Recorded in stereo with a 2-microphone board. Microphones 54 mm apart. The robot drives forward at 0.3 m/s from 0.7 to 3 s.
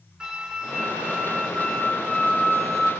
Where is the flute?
10° right (ahead or behind), 0.8 m; by 2.9 s 5° right (ahead or behind), 1.3 m.